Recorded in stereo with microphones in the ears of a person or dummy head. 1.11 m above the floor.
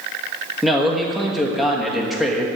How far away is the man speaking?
About 1.3 m.